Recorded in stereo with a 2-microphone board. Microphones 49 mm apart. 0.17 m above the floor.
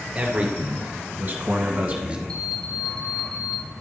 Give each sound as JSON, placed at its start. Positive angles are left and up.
{"t": 0.1, "sound": "a man speaking", "side_deg": -25, "distance_m": 2.5}
{"t": 2.3, "sound": "an alarm clock", "side_deg": 15, "distance_m": 0.8}